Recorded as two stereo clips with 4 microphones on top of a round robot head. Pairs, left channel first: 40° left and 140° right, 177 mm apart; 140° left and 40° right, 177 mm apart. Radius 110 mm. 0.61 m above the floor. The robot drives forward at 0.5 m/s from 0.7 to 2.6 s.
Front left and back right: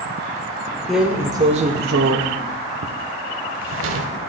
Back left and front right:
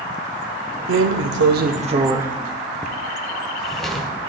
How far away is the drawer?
About 0.6 m.